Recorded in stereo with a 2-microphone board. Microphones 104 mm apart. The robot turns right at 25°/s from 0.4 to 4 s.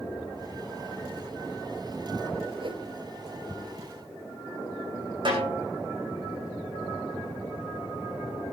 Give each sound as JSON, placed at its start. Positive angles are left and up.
{"t": 2.6, "sound": "a whoosh", "side_deg": -55, "distance_m": 1.2}
{"t": 5.2, "sound": "a snare drum", "side_deg": -50, "distance_m": 5.5}